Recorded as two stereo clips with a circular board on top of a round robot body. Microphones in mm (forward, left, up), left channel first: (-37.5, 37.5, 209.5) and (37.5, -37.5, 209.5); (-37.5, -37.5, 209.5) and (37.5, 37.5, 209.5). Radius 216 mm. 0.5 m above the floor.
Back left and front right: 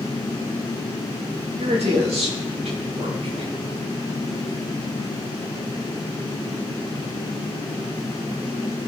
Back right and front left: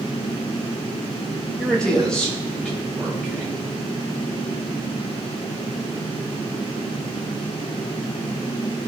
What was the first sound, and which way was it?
A man speaking, 55° right.